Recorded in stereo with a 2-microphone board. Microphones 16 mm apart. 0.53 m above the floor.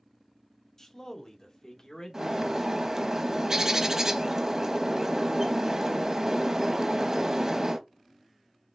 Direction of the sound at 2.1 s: 35° right (ahead or behind).